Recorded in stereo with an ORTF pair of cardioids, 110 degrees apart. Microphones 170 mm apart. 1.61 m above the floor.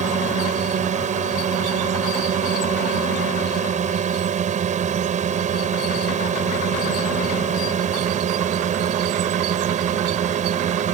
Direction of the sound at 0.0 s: 45° right.